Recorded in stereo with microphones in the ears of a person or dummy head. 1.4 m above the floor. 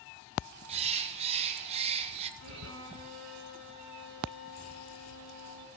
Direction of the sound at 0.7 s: 40° right (ahead or behind).